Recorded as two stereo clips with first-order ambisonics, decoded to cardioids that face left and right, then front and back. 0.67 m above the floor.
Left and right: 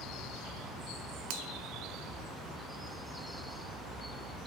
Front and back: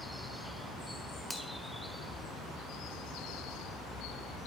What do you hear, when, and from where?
1.3 s a finger snap: 85° right, 4 m